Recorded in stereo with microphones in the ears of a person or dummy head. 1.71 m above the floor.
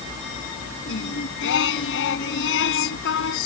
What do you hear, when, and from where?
0.9 s singing: 80° left